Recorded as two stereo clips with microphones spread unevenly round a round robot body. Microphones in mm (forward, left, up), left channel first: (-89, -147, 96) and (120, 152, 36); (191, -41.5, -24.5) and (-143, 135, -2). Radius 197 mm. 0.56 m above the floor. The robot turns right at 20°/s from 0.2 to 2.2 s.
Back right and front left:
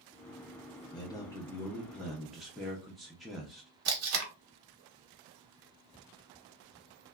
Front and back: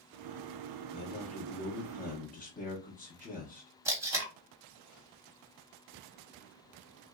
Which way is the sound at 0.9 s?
40° right.